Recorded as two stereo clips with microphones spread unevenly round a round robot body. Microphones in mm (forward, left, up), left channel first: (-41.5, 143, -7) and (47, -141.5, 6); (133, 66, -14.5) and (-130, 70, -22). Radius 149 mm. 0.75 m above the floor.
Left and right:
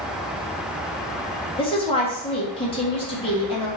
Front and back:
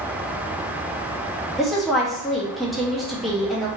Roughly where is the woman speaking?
Left.